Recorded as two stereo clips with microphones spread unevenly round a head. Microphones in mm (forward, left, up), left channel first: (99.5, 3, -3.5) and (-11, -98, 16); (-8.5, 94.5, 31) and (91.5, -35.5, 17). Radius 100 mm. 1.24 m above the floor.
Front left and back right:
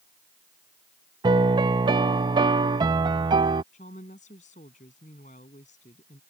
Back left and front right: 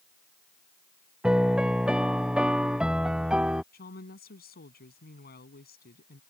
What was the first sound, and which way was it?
A piano, 140° right.